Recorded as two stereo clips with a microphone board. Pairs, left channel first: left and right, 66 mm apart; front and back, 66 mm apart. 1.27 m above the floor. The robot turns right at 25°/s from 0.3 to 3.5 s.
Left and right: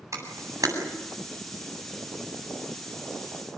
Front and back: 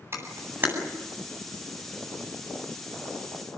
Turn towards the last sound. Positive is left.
turn(degrees=-50)